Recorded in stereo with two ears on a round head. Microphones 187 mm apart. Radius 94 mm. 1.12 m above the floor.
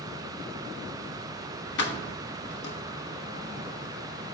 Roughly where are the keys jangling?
Left.